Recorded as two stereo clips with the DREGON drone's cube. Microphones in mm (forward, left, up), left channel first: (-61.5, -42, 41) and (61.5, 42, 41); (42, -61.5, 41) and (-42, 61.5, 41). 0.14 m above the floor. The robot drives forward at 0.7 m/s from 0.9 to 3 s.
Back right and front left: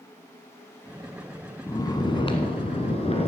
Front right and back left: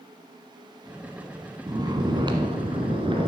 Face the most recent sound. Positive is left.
turn(degrees=175)